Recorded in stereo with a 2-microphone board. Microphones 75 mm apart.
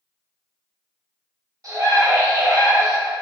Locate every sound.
1.6 s a scream: 50° right (ahead or behind), 1.0 m